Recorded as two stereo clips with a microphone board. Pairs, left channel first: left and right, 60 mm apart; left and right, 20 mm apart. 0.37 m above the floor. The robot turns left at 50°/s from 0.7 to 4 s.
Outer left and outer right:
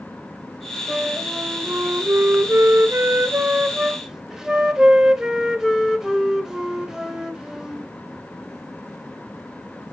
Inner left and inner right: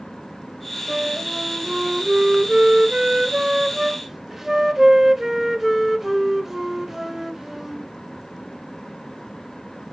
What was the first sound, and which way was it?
A flute, 15° right.